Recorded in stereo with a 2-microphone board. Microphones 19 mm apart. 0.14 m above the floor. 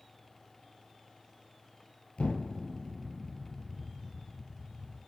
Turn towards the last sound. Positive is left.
turn(degrees=70)  # may be behind; listen again after turning